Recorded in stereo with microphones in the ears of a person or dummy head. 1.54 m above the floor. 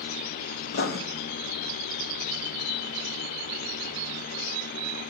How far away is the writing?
About 0.9 m.